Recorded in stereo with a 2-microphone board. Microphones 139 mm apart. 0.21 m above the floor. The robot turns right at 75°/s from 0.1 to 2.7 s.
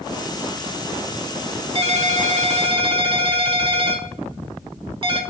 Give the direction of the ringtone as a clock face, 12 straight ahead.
4 o'clock.